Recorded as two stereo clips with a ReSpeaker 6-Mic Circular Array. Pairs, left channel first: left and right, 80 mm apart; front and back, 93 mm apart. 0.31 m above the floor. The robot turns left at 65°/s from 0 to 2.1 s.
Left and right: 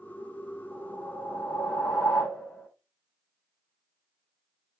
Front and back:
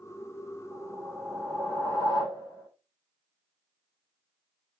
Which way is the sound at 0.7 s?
135° left.